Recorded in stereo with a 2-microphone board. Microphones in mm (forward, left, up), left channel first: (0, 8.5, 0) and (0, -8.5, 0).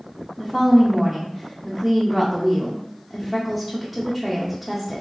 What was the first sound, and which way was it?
A woman speaking, 5° right (ahead or behind).